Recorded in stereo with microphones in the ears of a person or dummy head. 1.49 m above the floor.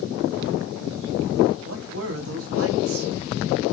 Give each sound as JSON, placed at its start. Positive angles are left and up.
{"t": 1.6, "sound": "a man speaking", "side_deg": -80, "distance_m": 1.1}